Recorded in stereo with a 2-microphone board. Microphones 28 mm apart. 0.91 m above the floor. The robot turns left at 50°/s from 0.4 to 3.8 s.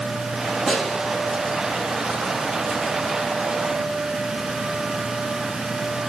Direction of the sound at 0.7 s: Centre (ahead or behind).